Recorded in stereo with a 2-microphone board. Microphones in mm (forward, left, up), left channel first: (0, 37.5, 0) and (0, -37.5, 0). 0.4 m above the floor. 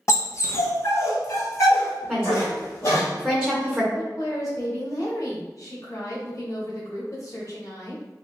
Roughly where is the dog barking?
Left.